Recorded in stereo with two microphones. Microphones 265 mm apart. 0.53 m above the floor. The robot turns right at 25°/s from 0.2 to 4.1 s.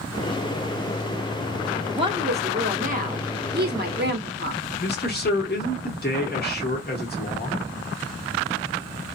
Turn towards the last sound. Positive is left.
turn(degrees=40)  # may be behind; listen again after turning